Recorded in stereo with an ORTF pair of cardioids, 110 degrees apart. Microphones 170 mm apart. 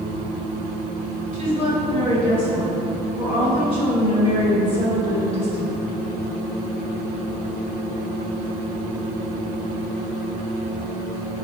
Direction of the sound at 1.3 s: 35° left.